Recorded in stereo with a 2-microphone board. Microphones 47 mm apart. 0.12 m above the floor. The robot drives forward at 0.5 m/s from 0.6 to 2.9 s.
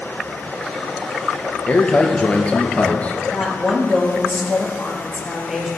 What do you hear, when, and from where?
1.7 s a man speaking: 25° left (ahead or behind), 2.5 m; by 3.2 s 30° left (ahead or behind), 2.0 m
3.3 s a woman speaking: 15° right (ahead or behind), 3 m